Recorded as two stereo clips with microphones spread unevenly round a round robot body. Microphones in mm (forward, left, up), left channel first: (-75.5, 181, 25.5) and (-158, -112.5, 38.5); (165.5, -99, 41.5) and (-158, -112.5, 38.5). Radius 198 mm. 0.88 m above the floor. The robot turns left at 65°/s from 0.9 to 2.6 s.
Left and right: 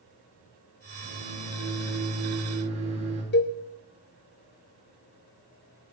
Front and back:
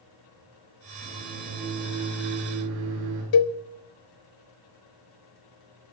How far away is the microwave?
About 10 m.